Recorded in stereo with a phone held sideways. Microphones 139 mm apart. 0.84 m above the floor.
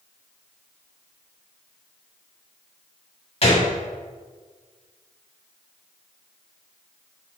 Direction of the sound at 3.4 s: 50° left (ahead or behind).